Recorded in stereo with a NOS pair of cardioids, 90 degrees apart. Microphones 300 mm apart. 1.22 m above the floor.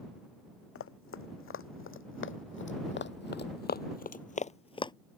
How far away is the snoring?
No snoring in this recording.